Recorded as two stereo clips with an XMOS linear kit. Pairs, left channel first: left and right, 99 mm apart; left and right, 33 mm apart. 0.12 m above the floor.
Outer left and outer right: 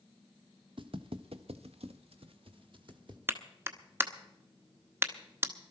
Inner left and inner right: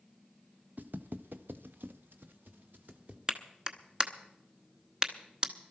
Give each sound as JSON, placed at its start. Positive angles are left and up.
{"t": 0.8, "sound": "footsteps", "side_deg": -60, "distance_m": 1.0}
{"t": 3.3, "sound": "a clap", "side_deg": -25, "distance_m": 0.9}